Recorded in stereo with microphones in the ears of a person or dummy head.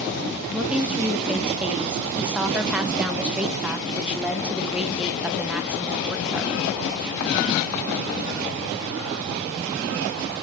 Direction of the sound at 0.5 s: 10° right (ahead or behind).